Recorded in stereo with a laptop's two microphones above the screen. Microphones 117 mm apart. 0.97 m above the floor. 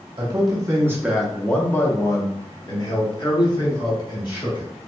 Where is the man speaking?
40° right (ahead or behind), 0.9 m; by 4.7 s 45° left (ahead or behind), 2.5 m.